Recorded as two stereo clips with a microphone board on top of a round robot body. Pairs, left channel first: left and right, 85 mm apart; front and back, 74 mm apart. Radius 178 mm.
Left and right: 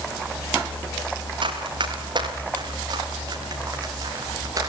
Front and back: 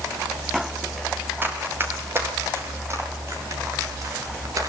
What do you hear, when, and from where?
1.4 s running footsteps: 120° right, 7 m; by 4.7 s 140° right, 8.5 m